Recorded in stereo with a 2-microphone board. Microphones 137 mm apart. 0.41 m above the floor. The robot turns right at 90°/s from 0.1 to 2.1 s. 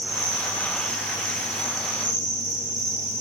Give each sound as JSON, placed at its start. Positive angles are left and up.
{"t": 0.0, "sound": "an insect", "azimuth_deg": -5, "distance_m": 7.0}